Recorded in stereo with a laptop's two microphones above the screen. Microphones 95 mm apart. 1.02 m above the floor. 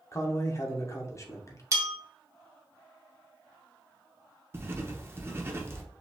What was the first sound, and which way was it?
A man speaking, 35° left (ahead or behind).